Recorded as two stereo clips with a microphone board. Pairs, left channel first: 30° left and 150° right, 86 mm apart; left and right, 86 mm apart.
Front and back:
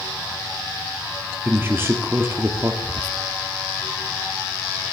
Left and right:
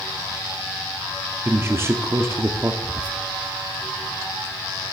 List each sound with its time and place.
1.4 s a man speaking: 115° right, 0.7 m
2.8 s whispering: 20° right, 0.7 m